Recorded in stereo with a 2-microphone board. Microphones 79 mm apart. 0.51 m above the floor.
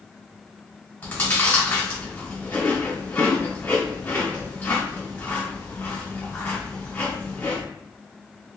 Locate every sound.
1.0 s chewing: 20° left (ahead or behind), 1.9 m